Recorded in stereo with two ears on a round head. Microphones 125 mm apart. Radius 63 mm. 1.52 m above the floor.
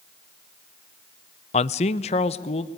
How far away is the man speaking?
About 0.6 m.